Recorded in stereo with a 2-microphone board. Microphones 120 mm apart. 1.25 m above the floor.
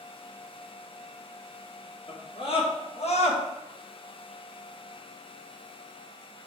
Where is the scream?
45° left (ahead or behind), 2 m; by 3.4 s 65° left (ahead or behind), 1.5 m.